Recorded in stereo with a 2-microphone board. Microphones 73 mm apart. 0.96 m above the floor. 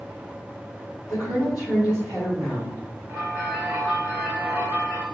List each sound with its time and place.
1.1 s a woman speaking: 60° left (ahead or behind), 1.8 m; by 2.8 s 40° left (ahead or behind), 2.0 m
3.1 s a bell: 70° left (ahead or behind), 1.7 m